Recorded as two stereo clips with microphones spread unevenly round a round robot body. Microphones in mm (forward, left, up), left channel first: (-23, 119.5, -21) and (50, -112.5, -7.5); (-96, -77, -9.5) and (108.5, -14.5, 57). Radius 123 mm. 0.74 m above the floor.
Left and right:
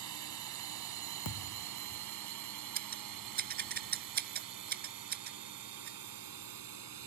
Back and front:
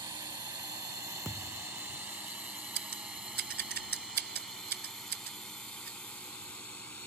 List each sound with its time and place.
0.0 s a drone: 55° right; by 7.1 s 80° right
1.2 s a thud: 105° left
2.8 s scissors: 20° right